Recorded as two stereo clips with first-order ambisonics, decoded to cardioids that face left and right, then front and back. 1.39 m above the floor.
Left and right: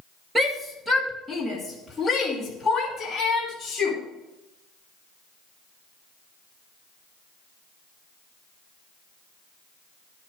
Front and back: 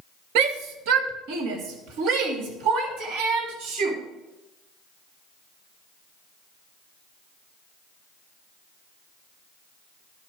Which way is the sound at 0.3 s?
170° right.